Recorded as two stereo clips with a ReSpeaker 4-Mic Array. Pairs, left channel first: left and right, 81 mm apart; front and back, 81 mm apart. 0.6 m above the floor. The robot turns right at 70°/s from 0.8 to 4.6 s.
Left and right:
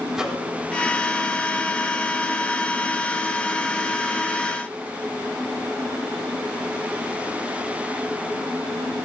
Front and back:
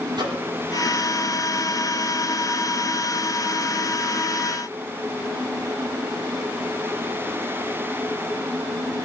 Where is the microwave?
170° right, 5 m.